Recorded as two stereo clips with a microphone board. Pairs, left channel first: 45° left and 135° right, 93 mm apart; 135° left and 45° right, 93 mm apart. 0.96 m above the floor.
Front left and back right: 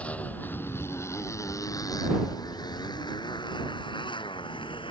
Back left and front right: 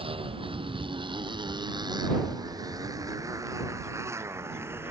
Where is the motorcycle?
30° right; by 4.9 s 20° left.